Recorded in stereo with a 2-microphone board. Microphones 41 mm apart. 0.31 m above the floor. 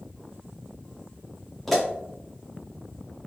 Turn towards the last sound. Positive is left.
turn(degrees=5)  # may be behind; listen again after turning